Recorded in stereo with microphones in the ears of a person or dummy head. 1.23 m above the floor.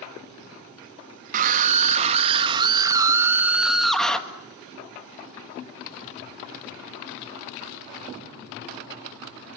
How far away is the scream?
About 2.5 m.